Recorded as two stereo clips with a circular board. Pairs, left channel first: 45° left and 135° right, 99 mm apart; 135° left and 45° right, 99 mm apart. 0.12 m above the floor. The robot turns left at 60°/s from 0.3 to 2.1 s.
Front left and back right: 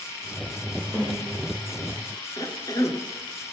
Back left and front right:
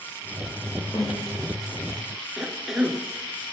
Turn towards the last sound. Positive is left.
turn(degrees=40)